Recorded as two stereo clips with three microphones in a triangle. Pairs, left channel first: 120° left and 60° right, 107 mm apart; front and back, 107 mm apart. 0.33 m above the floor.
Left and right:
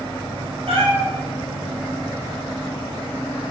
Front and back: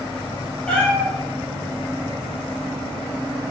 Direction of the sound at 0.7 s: 80° right.